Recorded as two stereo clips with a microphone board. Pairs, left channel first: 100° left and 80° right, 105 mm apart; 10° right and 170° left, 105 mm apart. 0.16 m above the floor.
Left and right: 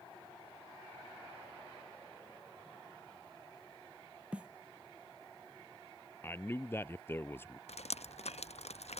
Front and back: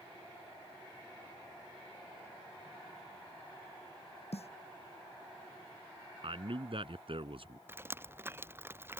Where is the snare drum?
Straight ahead.